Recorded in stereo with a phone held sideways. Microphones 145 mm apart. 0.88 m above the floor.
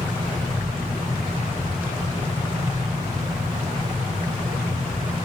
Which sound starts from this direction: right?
A fan, at 0.0 s.